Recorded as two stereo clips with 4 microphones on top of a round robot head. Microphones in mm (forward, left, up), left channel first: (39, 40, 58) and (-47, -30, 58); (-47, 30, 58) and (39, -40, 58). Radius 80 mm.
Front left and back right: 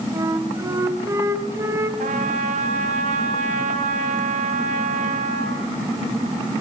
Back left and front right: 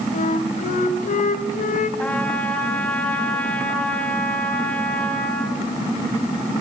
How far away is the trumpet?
About 3.5 m.